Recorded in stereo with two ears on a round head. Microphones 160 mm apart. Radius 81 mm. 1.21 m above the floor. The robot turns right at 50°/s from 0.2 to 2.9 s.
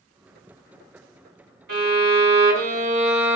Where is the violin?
100° right, 2.0 m; by 3.4 s 40° right, 2.0 m.